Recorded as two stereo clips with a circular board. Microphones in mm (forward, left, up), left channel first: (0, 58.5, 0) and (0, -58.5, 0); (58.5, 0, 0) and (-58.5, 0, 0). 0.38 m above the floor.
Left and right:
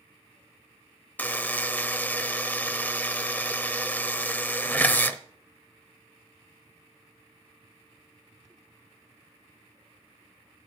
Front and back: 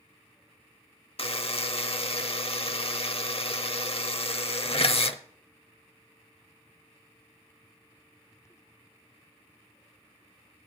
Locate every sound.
1.2 s a buzzer: 20° left, 0.7 m